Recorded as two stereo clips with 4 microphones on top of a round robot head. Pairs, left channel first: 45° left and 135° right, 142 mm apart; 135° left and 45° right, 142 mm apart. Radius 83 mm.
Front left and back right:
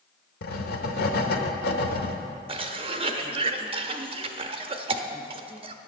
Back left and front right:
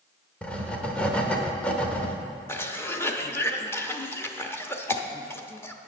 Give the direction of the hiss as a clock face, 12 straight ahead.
I don't hear a hiss.